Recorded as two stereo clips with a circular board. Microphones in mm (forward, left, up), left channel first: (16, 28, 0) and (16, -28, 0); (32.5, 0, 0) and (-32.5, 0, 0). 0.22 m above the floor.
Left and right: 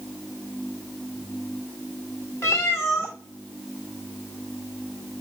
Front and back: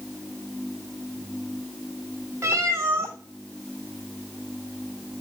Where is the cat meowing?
130° left, 1.6 m.